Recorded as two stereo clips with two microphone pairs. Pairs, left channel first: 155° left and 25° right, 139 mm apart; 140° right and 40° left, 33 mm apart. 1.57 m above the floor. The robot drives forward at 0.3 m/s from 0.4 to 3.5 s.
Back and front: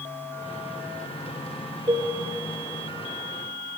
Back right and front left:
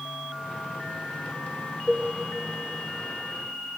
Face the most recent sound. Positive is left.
turn(degrees=-110)